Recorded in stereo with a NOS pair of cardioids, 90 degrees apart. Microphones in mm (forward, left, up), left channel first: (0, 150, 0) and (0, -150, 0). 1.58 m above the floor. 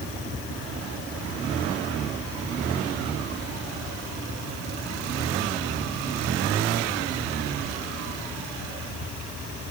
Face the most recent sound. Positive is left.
No sound to turn to.